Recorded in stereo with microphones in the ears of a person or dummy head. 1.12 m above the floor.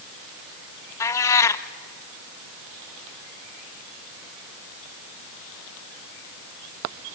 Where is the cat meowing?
20° left (ahead or behind), 0.6 m.